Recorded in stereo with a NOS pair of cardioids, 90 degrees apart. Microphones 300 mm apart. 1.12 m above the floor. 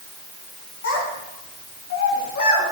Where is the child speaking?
50° left, 5.5 m; by 2.6 s 60° left, 6 m.